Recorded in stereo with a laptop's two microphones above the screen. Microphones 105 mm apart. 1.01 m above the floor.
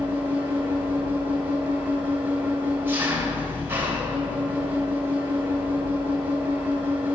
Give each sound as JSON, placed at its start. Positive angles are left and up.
{"t": 0.0, "sound": "an engine running", "side_deg": -20, "distance_m": 3.0}